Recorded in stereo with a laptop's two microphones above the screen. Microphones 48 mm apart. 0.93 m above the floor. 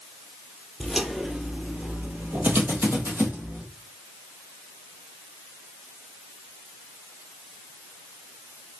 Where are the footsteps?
Centre (ahead or behind), 1.3 m; by 3.6 s 55° right (ahead or behind), 1.8 m.